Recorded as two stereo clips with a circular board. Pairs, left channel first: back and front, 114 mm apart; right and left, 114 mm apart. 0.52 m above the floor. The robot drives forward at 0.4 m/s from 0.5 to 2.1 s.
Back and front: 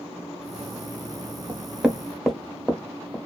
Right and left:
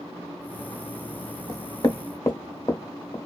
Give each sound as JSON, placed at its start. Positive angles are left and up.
{"t": 1.5, "sound": "knocking", "azimuth_deg": -60, "distance_m": 0.7}